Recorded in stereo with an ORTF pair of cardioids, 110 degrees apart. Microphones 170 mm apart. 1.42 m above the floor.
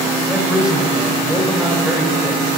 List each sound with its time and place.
0.3 s a man speaking: 5° right, 2.5 m